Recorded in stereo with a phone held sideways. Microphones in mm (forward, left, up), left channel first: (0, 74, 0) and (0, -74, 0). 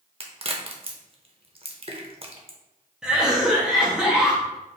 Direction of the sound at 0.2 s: 40° right (ahead or behind).